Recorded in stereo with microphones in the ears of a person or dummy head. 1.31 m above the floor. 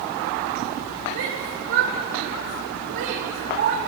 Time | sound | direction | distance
1.1 | a shout | 55° right (ahead or behind) | 5 m